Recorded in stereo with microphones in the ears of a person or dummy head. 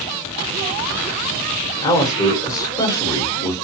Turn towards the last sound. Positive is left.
turn(degrees=25)  # may be behind; listen again after turning